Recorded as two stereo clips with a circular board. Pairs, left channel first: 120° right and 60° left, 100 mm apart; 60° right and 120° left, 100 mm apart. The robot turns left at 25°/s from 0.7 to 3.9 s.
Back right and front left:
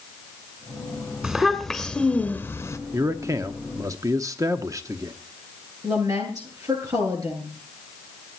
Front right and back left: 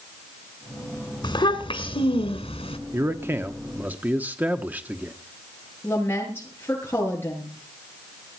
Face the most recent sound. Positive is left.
turn(degrees=10)